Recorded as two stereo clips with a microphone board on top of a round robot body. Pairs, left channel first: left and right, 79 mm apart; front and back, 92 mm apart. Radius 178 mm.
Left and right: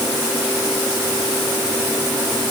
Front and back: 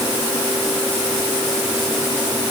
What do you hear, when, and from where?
Only background noise.